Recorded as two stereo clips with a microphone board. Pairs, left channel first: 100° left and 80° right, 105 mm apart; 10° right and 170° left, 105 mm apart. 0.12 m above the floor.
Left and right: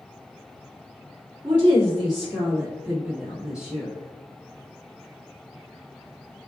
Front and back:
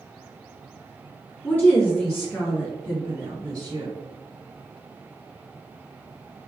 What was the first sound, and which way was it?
A woman speaking, 85° right.